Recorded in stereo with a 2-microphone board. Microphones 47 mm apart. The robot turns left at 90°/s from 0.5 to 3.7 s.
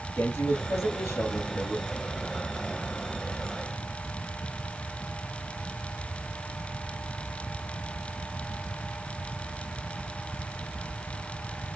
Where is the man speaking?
110° left, 3 m; by 1.9 s 20° right, 3 m.